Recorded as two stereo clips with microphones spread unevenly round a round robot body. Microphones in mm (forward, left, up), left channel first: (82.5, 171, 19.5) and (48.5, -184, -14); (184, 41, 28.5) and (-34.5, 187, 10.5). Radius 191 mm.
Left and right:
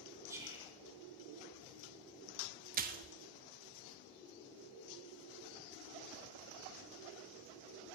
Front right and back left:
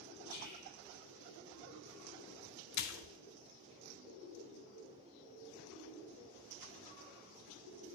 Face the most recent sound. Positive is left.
turn(degrees=-35)